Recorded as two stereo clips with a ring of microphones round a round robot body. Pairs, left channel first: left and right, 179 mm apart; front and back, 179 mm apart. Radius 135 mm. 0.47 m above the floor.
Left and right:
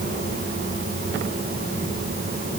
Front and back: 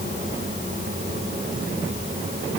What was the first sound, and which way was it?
Only background noise.